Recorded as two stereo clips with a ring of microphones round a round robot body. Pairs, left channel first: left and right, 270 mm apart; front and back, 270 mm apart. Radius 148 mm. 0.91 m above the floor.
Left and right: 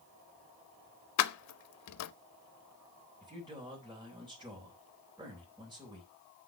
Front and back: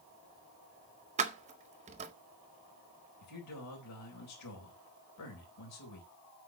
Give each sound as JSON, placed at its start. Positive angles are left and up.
{"t": 1.2, "sound": "keys jangling", "azimuth_deg": 115, "distance_m": 0.5}
{"t": 3.2, "sound": "a man speaking", "azimuth_deg": -15, "distance_m": 3.5}